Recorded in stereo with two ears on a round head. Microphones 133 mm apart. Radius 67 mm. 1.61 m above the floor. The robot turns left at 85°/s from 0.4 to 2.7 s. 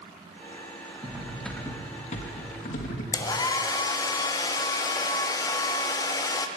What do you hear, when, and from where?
1.0 s cutlery clinking: 145° right, 1.3 m; by 3.0 s 70° left, 1.3 m
3.1 s a hair dryer: 25° left (ahead or behind), 0.6 m